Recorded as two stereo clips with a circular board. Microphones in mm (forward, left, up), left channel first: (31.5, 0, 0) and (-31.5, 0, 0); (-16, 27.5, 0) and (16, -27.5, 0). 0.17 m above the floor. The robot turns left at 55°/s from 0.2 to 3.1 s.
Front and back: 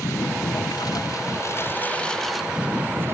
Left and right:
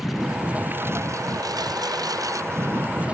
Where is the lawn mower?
25° left; by 3.1 s 130° right.